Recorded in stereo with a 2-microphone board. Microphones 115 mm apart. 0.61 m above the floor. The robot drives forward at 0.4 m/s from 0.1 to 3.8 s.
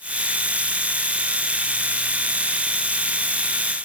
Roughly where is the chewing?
I don't hear chewing.